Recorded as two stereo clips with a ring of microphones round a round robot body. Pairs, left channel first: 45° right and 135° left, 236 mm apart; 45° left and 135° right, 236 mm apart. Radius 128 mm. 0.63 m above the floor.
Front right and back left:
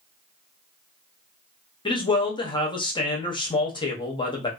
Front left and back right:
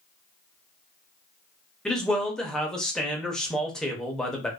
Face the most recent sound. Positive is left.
turn(degrees=-35)